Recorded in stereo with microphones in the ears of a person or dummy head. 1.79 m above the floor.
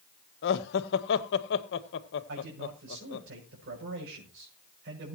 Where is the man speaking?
65° right (ahead or behind), 7 m.